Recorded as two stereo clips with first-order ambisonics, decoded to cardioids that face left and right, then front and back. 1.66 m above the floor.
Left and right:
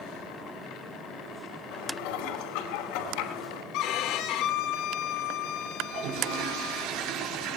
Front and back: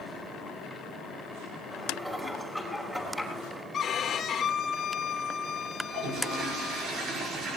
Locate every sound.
1.7 s dishes clattering: 90° left, 5 m
3.7 s a violin: 65° left, 1.9 m
5.8 s a toilet flushing: 120° right, 5 m